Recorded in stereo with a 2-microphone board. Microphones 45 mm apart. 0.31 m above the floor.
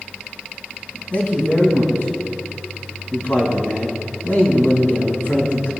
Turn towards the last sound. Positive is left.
turn(degrees=50)  # may be behind; listen again after turning